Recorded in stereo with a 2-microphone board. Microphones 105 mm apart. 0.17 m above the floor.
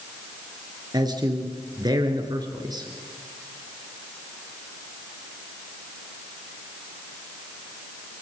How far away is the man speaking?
About 3 m.